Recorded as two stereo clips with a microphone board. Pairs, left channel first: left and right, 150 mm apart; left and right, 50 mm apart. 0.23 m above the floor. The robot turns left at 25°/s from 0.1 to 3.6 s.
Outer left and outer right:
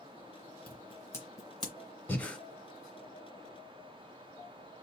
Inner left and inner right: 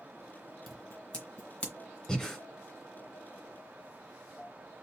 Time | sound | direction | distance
0.7 | scissors | 5° left (ahead or behind) | 2.0 m
2.1 | breathing | 10° left (ahead or behind) | 1.4 m